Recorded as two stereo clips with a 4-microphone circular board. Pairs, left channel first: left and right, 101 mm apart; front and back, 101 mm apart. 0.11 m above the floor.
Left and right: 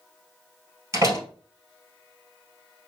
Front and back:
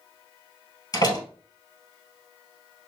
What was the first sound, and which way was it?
A door slam, 40° right.